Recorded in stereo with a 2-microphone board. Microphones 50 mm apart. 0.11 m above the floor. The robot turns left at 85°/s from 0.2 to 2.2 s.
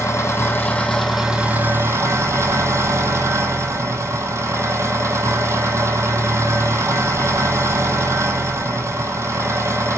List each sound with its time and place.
0.0 s an engine running: 75° left, 0.9 m; by 10.0 s 95° right, 0.9 m